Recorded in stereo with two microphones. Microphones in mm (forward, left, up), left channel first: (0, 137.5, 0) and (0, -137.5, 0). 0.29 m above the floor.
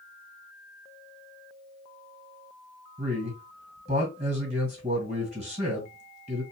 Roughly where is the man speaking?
Right.